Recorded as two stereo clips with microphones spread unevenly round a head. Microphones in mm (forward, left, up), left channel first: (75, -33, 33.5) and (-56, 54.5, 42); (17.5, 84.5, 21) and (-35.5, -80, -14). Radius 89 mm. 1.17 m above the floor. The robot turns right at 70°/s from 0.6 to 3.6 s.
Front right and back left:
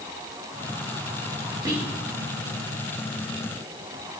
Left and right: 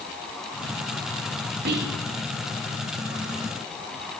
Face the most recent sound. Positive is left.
turn(degrees=-10)